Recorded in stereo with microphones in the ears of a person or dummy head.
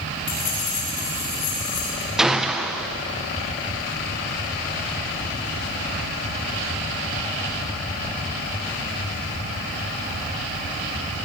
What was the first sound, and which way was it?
Keys jangling, 40° left (ahead or behind).